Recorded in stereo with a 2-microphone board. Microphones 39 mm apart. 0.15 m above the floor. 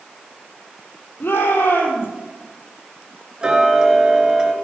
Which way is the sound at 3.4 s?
20° right (ahead or behind).